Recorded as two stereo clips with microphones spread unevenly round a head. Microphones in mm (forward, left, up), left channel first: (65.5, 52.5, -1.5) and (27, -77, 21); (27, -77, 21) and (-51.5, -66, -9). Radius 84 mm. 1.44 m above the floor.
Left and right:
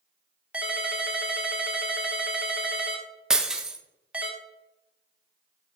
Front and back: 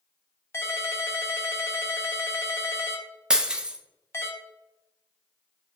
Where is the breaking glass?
60° right, 0.6 m.